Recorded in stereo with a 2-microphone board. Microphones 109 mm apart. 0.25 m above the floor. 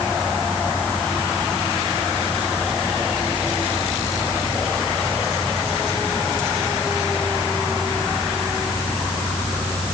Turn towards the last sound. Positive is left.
No sound to turn to.